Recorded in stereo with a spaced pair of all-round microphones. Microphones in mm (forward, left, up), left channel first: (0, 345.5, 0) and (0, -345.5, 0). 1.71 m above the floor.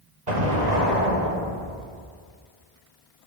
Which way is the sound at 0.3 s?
75° right (ahead or behind).